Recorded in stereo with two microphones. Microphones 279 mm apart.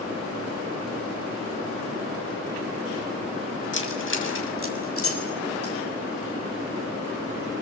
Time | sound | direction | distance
3.7 | keys jangling | 45° left (ahead or behind) | 6.5 m